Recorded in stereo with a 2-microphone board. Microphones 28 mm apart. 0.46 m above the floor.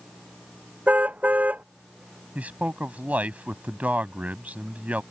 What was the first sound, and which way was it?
A car horn, 65° right (ahead or behind).